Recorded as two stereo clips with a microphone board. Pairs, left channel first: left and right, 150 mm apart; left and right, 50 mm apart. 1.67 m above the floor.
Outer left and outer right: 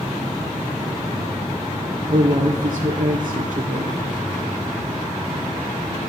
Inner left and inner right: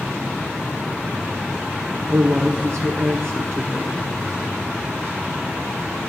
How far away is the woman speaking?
About 0.7 m.